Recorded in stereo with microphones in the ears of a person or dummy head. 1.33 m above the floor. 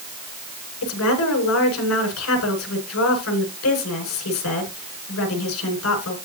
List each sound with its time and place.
0.8 s a woman speaking: 80° left, 7 m